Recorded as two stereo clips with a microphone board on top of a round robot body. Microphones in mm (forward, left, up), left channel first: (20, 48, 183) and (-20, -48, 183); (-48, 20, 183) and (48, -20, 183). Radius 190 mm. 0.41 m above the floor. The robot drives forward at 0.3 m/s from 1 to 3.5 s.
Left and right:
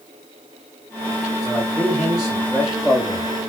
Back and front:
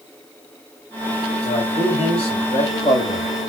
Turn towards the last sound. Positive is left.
turn(degrees=165)